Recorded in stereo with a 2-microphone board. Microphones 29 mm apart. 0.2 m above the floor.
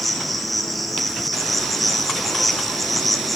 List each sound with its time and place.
0.0 s an insect: 5° right (ahead or behind), 2 m